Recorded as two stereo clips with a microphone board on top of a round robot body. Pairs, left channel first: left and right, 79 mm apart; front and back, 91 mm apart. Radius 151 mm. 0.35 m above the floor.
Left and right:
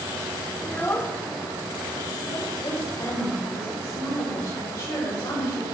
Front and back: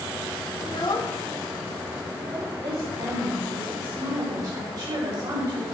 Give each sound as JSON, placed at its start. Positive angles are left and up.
{"t": 0.6, "sound": "a child speaking", "azimuth_deg": 20, "distance_m": 1.2}
{"t": 2.6, "sound": "a woman speaking", "azimuth_deg": 140, "distance_m": 3.0}